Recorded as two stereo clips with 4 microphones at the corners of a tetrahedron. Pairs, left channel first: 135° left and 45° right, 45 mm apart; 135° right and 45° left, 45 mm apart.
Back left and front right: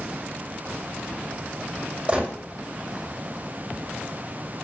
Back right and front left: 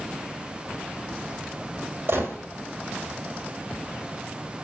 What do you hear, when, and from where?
2.1 s a gunshot: 20° left, 1.7 m